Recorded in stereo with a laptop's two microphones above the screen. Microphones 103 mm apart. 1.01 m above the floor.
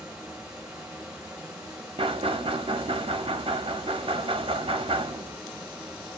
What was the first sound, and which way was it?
A fan, 10° right (ahead or behind).